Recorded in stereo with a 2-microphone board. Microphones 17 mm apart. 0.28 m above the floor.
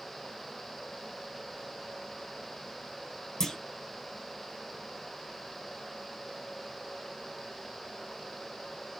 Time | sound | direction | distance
3.4 | a clunk | 35° left (ahead or behind) | 1.4 m